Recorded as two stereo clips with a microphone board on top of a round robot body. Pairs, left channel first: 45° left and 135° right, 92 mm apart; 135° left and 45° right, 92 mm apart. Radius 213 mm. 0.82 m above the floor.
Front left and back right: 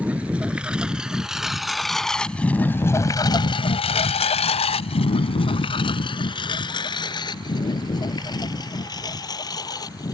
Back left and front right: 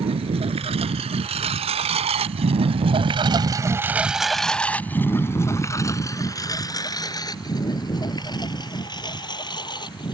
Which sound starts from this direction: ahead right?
A lawn mower, at 0.0 s.